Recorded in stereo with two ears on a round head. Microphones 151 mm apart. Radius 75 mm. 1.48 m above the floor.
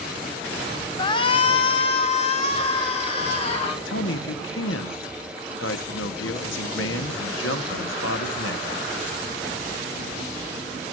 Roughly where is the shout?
Left.